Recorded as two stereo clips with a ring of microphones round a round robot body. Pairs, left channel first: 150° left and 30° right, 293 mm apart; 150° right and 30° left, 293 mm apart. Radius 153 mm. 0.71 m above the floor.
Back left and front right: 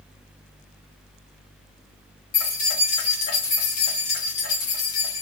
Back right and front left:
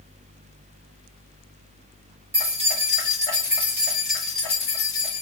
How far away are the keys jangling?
About 2.5 m.